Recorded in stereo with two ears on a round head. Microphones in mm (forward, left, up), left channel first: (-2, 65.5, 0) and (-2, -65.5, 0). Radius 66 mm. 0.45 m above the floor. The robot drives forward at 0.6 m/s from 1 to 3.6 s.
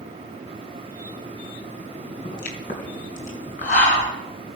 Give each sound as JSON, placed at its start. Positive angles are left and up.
{"t": 2.2, "sound": "a pop", "side_deg": 65, "distance_m": 3.5}